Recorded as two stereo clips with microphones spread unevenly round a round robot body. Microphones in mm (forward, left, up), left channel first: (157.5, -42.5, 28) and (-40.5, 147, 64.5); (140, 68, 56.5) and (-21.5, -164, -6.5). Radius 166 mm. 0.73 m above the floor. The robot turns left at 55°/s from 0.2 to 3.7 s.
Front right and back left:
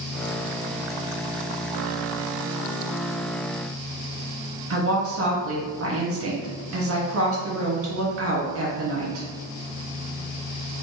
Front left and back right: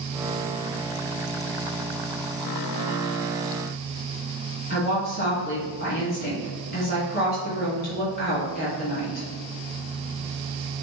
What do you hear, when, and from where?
4.7 s a woman speaking: 115° left, 1.4 m